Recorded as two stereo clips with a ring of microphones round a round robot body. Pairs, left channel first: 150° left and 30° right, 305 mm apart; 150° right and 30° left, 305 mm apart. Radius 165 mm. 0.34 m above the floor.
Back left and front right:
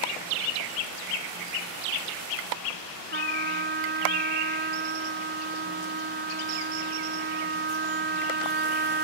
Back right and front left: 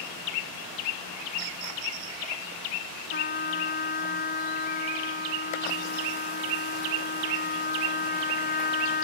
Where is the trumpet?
90° right.